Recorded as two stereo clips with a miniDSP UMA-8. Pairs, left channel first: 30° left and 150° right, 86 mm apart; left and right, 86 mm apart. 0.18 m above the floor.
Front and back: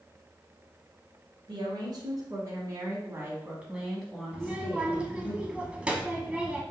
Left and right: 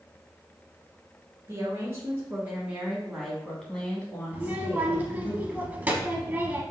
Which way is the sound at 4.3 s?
105° right.